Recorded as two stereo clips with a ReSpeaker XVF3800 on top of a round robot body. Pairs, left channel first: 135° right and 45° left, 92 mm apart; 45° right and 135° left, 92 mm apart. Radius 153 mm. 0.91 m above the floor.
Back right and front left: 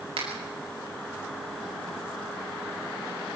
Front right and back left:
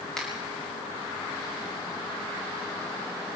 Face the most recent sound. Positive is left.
turn(degrees=40)